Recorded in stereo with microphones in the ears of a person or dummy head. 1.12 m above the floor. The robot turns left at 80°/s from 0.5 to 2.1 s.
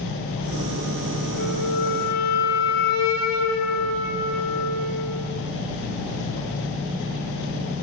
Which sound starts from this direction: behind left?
A flute, at 1.4 s.